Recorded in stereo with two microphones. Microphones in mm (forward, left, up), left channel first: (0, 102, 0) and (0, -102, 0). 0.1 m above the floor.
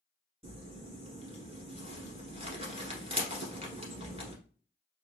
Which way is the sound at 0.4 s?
25° right (ahead or behind).